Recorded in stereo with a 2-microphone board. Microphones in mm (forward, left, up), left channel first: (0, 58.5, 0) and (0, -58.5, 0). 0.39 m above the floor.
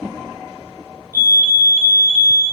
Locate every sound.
1.1 s a fire alarm: 15° right (ahead or behind), 2 m